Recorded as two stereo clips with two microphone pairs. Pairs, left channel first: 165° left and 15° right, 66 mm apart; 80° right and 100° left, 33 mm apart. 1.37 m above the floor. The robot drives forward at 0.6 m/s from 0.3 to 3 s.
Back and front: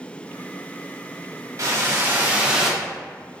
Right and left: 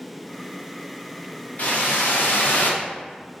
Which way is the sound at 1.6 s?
60° right.